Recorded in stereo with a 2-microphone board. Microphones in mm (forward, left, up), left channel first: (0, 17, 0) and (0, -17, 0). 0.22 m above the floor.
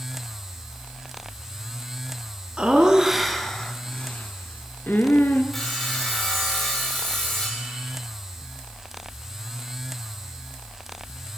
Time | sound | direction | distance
2.6 | laughter | 30° right (ahead or behind) | 2 m
5.5 | sawing | 10° left (ahead or behind) | 4.5 m